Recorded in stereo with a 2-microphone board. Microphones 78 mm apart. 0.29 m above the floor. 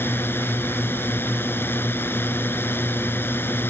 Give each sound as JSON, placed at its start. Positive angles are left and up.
{"t": 0.0, "sound": "a drone", "side_deg": 30}